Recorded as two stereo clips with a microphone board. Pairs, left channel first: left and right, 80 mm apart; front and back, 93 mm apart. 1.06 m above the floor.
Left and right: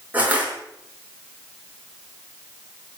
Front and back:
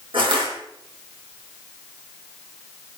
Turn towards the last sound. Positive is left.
turn(degrees=-160)